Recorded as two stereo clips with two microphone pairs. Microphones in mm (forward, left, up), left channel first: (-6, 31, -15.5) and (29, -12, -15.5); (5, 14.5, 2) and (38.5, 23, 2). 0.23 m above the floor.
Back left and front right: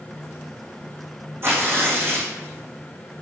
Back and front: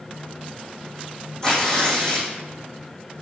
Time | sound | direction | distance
1.4 | tearing paper | 95° right | 2.5 m